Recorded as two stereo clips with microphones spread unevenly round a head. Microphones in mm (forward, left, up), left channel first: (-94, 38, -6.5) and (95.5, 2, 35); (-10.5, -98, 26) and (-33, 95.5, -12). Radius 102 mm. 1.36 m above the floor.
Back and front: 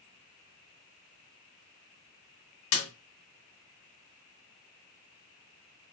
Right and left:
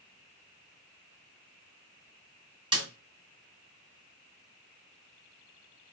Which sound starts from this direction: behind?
A snare drum, at 2.7 s.